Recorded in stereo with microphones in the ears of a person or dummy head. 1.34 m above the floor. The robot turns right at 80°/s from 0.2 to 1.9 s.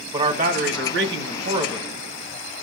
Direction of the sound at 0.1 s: 150° right.